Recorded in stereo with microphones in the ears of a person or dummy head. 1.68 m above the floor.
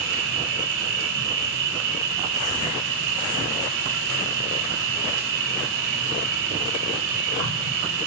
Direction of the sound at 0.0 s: 75° right (ahead or behind).